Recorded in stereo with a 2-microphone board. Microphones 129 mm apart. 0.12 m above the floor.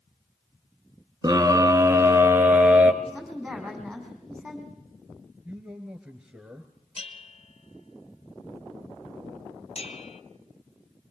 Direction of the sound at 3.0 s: Centre (ahead or behind).